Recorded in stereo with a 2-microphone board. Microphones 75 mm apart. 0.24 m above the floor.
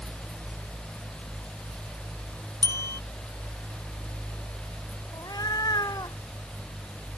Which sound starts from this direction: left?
A cat meowing, at 5.1 s.